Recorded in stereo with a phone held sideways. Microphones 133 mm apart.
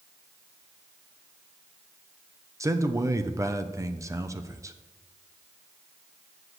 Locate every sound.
2.6 s a man speaking: 25° right (ahead or behind), 0.7 m